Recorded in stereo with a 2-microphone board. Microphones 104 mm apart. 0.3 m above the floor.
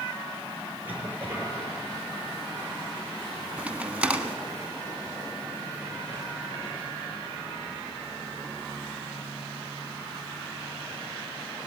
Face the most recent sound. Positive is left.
turn(degrees=-10)  # may be behind; listen again after turning